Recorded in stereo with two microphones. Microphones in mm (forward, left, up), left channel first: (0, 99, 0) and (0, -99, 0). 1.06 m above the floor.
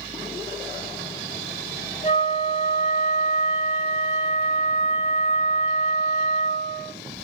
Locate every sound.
2.0 s a flute: 40° left (ahead or behind), 4.5 m